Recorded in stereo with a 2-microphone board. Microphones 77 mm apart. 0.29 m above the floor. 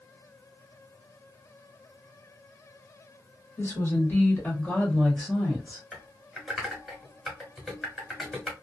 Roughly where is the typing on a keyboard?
Centre.